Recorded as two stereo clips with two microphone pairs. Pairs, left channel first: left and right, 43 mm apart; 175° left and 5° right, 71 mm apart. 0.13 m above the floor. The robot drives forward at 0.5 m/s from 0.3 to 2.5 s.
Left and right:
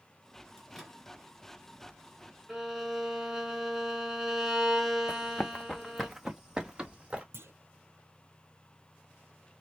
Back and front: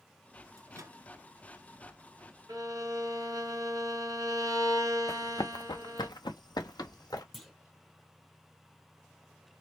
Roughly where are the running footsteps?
Behind left.